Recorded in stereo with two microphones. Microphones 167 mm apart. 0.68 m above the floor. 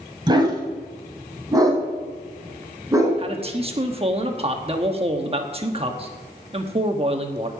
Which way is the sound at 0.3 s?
25° right (ahead or behind).